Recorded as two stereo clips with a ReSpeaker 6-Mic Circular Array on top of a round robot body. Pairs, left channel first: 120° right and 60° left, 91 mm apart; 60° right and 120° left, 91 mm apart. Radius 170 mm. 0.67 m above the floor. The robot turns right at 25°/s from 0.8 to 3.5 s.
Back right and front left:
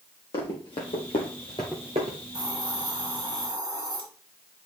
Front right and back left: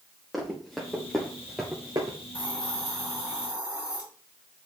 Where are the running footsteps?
150° right, 2 m; by 2.2 s 75° left, 1.0 m.